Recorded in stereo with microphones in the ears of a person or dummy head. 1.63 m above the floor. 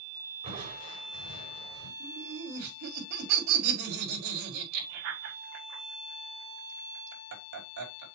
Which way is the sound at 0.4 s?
30° right (ahead or behind).